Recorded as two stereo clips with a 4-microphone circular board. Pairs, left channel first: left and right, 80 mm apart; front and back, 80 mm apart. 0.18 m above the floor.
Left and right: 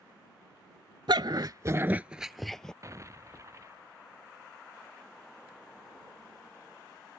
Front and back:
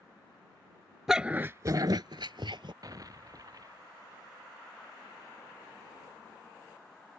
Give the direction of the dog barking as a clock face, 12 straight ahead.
3 o'clock.